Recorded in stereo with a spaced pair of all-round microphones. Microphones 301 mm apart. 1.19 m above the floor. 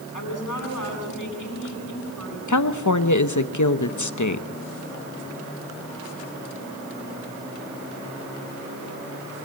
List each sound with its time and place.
0.1 s a woman speaking: 90° left, 8.5 m
2.5 s a woman speaking: 75° left (ahead or behind), 0.9 m